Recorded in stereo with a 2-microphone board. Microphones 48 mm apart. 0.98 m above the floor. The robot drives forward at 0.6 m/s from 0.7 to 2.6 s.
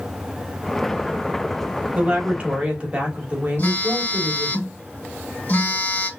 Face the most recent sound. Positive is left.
turn(degrees=40)  # may be behind; listen again after turning